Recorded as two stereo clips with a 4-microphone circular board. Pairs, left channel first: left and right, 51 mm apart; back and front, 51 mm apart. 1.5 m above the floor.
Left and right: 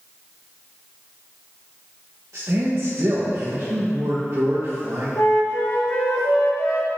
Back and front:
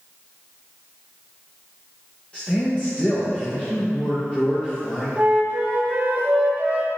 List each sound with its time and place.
2.3 s a man speaking: 115° right, 1.4 m
5.2 s a flute: 65° left, 1.2 m